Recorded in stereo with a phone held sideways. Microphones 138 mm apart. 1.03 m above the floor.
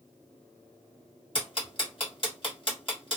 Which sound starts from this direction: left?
Ticking, at 1.4 s.